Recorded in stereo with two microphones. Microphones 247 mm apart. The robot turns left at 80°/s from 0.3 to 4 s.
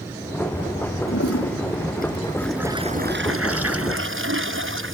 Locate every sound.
1.1 s a toilet flushing: 115° left; by 5.0 s 120° right